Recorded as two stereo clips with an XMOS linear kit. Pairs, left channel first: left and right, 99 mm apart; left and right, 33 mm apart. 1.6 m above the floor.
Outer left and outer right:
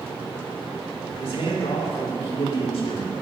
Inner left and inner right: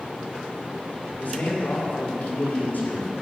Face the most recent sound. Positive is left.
turn(degrees=85)